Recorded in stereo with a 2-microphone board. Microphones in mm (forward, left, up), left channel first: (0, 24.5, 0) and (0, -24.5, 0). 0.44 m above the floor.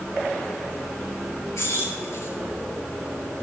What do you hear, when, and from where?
1.6 s keys jangling: 80° left, 5 m